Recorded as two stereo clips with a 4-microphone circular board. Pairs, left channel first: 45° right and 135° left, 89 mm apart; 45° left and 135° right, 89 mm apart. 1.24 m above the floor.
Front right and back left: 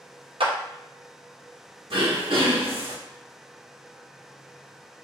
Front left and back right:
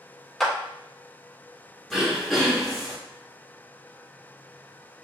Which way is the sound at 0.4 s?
135° left.